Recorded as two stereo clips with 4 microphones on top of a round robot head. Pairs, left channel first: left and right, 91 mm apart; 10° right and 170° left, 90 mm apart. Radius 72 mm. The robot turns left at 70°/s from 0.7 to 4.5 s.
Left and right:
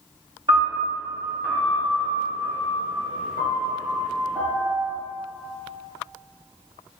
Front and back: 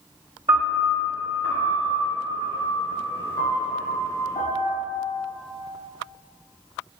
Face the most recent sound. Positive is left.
turn(degrees=-35)